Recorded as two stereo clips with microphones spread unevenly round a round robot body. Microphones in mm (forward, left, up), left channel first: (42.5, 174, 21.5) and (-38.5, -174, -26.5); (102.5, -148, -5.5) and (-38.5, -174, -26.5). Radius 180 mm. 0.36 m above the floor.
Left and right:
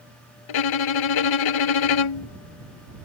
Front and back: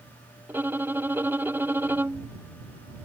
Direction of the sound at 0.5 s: 105° left.